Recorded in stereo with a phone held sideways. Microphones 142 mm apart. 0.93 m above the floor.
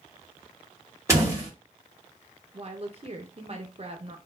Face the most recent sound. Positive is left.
turn(degrees=-45)  # may be behind; listen again after turning